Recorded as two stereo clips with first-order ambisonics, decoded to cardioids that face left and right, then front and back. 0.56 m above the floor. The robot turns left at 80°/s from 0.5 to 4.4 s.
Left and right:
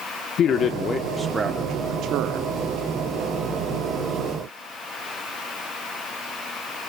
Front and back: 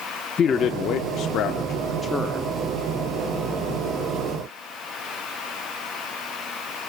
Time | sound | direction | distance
0.4 | a man speaking | 55° left | 0.8 m